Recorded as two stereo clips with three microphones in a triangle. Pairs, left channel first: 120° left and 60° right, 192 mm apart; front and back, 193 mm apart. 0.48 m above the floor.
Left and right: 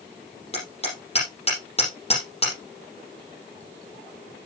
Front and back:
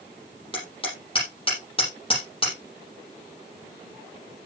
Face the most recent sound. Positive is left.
turn(degrees=60)